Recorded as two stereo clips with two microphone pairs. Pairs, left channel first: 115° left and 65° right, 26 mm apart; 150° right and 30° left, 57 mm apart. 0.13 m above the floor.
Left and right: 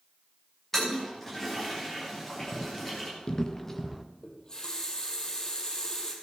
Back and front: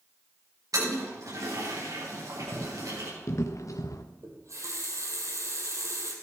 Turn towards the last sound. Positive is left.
turn(degrees=55)